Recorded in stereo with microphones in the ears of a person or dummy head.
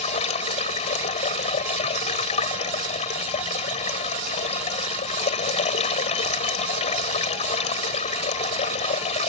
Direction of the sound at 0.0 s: 35° left (ahead or behind).